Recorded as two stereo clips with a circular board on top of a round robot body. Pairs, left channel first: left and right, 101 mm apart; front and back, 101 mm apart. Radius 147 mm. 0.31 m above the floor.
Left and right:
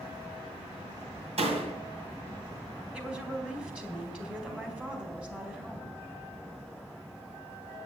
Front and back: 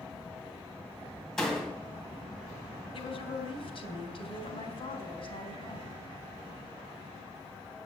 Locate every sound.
1.4 s a door slam: 85° right, 2 m
2.9 s a woman speaking: 10° right, 3 m